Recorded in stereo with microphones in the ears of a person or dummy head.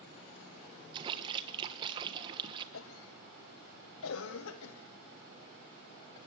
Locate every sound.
0.9 s a splash: 25° right (ahead or behind), 1.3 m
2.7 s a cough: 75° left (ahead or behind), 1.0 m